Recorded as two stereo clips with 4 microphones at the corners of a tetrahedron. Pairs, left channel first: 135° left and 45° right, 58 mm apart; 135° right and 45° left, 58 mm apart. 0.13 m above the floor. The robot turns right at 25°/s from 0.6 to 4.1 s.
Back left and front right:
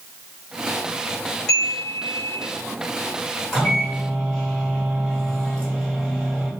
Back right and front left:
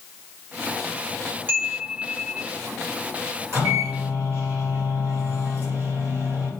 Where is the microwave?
40° left, 1.9 m; by 6.5 s 55° left, 1.9 m.